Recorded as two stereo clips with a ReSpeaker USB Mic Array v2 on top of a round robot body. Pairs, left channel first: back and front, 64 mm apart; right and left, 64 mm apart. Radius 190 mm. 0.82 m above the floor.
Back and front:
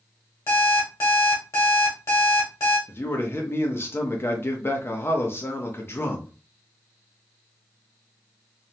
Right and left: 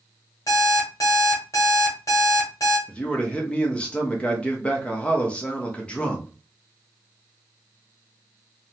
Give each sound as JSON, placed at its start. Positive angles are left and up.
{"t": 0.5, "sound": "an alarm clock", "azimuth_deg": -130, "distance_m": 1.2}
{"t": 2.9, "sound": "a man speaking", "azimuth_deg": -155, "distance_m": 0.9}